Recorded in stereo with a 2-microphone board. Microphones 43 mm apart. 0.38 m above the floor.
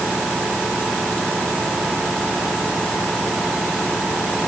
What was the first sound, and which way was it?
Only background noise.